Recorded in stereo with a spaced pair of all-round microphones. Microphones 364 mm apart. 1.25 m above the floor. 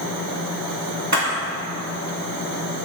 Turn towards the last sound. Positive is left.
turn(degrees=-50)  # may be behind; listen again after turning